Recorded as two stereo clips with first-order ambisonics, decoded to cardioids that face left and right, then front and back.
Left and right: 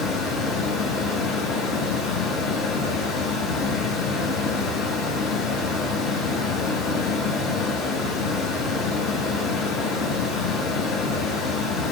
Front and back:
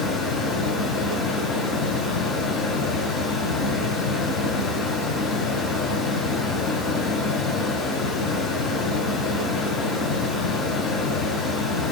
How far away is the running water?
About 1.7 m.